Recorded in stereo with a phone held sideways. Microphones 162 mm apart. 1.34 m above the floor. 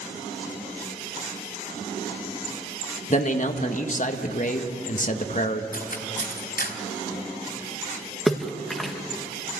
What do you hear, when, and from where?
3.1 s a man speaking: 50° left (ahead or behind), 1.4 m
5.7 s cutlery clinking: 70° left (ahead or behind), 3 m
8.3 s a splash: centre (ahead or behind), 1.5 m